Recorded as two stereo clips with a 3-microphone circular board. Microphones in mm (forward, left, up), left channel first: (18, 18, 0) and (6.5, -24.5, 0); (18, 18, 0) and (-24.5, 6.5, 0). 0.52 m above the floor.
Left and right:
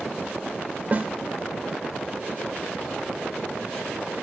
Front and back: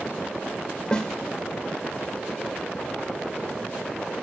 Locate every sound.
0.9 s a snare drum: 55° right, 0.8 m